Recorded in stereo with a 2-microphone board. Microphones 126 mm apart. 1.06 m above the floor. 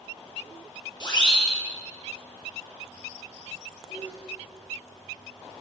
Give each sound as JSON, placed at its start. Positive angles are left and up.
{"t": 1.0, "sound": "a siren", "side_deg": 35, "distance_m": 7.5}
{"t": 3.9, "sound": "a sneeze", "side_deg": 75, "distance_m": 6.5}